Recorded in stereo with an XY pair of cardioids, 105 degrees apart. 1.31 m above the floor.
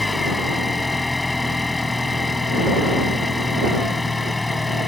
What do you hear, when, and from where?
0.0 s an engine running: 15° left